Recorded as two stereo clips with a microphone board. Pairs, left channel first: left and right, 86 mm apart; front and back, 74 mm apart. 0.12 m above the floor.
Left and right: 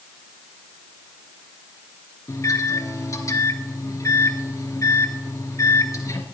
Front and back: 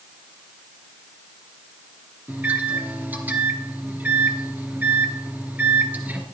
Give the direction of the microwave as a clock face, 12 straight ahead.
8 o'clock.